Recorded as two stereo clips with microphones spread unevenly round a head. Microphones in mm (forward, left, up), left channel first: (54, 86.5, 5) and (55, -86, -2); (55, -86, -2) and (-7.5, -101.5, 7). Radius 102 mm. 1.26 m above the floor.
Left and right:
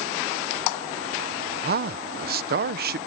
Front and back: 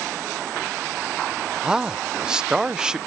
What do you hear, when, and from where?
1.6 s a man speaking: 80° right